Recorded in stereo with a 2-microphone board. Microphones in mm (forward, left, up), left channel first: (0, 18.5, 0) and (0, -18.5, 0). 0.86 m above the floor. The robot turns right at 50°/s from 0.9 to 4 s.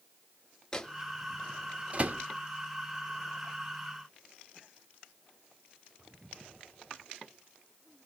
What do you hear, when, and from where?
0.7 s a microwave: 15° left (ahead or behind), 0.6 m; by 2.2 s 50° right (ahead or behind), 0.6 m